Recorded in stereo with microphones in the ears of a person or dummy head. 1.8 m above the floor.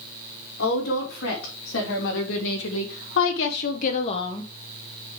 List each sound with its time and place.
0.6 s a woman speaking: 70° left (ahead or behind), 4 m; by 4.5 s 10° left (ahead or behind), 1.1 m